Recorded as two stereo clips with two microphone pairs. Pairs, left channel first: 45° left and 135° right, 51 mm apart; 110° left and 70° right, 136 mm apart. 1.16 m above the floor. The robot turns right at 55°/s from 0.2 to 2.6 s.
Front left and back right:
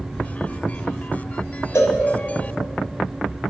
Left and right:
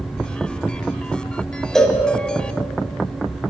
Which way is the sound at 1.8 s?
25° left.